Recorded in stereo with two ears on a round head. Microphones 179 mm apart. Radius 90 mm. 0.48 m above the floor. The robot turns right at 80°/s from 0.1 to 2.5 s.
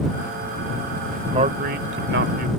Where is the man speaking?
150° right; by 2.5 s 55° right.